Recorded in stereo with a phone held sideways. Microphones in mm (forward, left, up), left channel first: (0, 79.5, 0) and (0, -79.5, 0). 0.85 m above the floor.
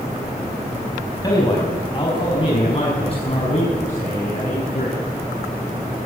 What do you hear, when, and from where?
1.2 s a man speaking: 25° left (ahead or behind), 5.5 m; by 5.0 s 50° left (ahead or behind), 8 m